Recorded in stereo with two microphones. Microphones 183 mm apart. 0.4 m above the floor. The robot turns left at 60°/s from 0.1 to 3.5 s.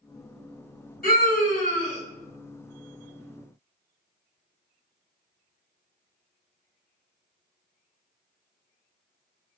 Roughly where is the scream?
Left.